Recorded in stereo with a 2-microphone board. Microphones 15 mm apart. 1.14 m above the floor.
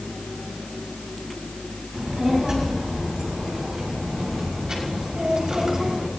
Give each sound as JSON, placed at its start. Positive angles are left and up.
{"t": 1.9, "sound": "a child speaking", "side_deg": -40, "distance_m": 7.0}